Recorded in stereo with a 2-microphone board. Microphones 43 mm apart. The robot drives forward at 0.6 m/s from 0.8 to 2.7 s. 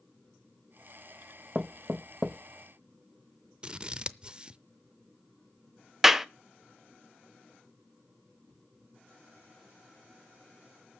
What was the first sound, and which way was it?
Knocking, 20° right (ahead or behind).